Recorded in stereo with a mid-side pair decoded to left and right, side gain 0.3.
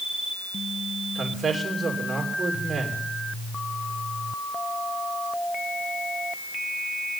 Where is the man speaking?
40° right, 3 m.